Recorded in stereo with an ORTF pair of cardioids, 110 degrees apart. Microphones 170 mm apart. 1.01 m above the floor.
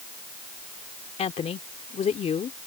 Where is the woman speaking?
40° left.